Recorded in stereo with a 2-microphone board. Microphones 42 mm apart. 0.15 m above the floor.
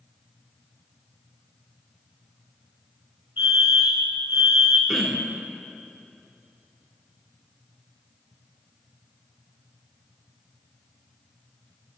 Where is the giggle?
No giggle in this recording.